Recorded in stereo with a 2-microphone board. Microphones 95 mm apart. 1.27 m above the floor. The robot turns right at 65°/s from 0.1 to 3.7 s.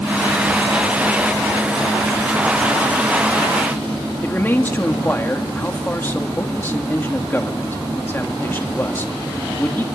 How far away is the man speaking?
About 3 m.